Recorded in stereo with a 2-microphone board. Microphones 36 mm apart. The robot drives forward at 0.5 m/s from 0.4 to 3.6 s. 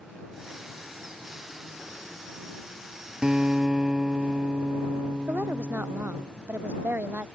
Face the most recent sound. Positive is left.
turn(degrees=-65)  # may be behind; listen again after turning